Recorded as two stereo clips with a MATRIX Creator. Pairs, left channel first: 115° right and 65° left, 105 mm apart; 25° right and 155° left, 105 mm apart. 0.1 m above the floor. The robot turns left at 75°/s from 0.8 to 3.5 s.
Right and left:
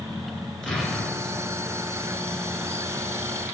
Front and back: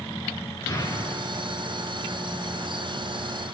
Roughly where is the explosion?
Ahead right.